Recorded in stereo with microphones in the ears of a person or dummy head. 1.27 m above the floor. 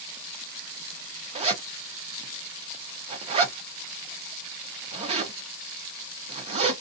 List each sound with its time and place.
1.4 s a zipper: 30° right (ahead or behind), 0.7 m